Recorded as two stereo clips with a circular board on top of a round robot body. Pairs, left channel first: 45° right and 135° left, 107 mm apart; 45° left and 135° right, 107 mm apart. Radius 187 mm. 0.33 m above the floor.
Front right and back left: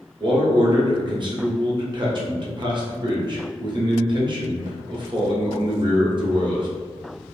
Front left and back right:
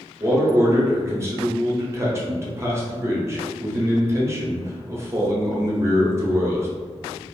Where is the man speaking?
165° left, 1.2 m.